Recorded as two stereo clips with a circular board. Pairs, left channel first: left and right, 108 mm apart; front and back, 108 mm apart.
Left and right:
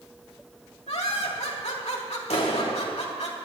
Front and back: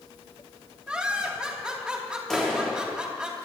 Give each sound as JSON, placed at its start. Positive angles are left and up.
{"t": 0.9, "sound": "laughter", "azimuth_deg": 100, "distance_m": 3.0}
{"t": 2.3, "sound": "a clap", "azimuth_deg": 85, "distance_m": 2.5}